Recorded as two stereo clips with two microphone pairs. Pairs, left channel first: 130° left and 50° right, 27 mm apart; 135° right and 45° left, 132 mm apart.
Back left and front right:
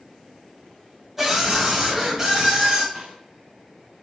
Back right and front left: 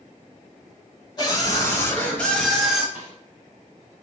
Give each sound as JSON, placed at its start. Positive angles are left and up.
{"t": 1.2, "sound": "a scream", "azimuth_deg": -115, "distance_m": 1.2}
{"t": 3.0, "sound": "a snare drum", "azimuth_deg": -20, "distance_m": 1.9}